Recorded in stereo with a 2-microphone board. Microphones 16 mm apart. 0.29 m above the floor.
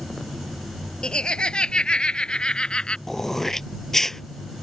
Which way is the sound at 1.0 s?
70° left (ahead or behind).